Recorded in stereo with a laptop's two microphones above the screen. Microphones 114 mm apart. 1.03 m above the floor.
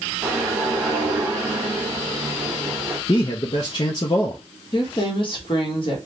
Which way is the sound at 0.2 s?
10° right (ahead or behind).